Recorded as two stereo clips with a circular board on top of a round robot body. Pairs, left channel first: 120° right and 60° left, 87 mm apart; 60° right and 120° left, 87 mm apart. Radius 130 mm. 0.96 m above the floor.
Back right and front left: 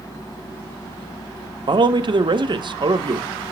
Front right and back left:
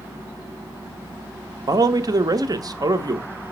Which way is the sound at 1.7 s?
80° left.